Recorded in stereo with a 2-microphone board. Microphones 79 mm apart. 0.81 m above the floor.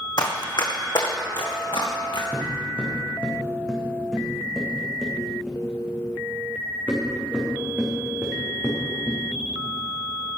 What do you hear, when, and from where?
0.2 s running footsteps: 60° left (ahead or behind), 1.8 m; by 2.2 s 75° left (ahead or behind), 3 m
2.3 s footsteps: 20° left (ahead or behind), 3.5 m; by 10.4 s 30° right (ahead or behind), 5.5 m